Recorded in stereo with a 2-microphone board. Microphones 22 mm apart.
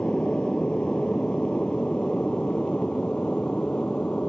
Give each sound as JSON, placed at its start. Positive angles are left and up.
{"t": 0.0, "sound": "an aircraft", "side_deg": 50}